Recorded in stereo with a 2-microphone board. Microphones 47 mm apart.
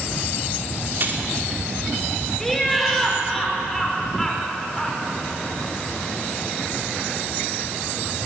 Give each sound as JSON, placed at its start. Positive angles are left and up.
{"t": 1.0, "sound": "keys jangling", "side_deg": -45, "distance_m": 2.5}
{"t": 2.4, "sound": "laughter", "side_deg": 5, "distance_m": 5.0}